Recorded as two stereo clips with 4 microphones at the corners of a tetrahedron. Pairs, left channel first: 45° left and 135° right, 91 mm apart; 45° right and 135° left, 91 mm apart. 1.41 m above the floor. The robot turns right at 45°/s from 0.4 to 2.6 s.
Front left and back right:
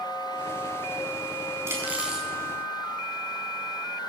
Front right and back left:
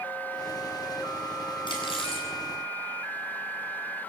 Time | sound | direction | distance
1.7 | cutlery clinking | 75° right | 7 m